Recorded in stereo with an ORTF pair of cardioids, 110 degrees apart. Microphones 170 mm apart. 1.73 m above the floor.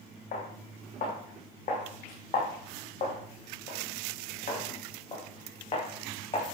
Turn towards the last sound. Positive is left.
turn(degrees=35)